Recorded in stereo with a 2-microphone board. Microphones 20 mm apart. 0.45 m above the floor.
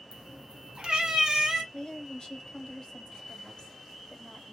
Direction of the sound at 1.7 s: 40° left (ahead or behind).